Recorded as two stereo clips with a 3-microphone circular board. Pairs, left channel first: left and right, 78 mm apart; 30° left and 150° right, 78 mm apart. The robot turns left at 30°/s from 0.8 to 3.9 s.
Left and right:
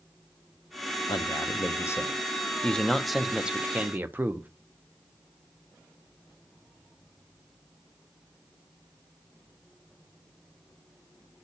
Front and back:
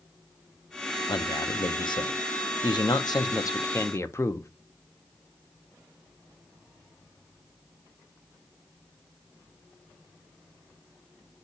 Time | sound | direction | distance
1.1 | a man speaking | 60° left | 0.9 m